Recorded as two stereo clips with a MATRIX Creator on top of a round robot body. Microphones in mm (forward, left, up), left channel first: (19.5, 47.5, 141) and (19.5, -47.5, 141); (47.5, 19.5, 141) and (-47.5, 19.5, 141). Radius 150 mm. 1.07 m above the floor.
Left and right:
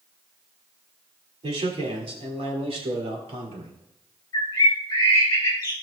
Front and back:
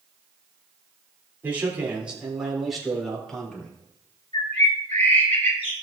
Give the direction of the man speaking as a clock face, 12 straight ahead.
4 o'clock.